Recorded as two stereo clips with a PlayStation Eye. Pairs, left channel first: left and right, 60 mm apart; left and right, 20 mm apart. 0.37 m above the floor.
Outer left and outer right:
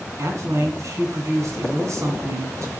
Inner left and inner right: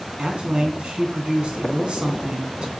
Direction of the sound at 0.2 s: 55° right (ahead or behind).